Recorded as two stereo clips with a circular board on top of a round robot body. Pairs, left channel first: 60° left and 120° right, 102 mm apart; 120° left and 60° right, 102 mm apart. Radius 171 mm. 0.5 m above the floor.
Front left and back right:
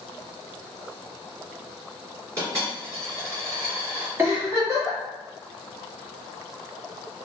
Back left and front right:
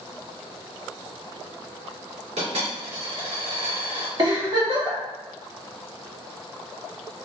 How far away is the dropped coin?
About 1.7 m.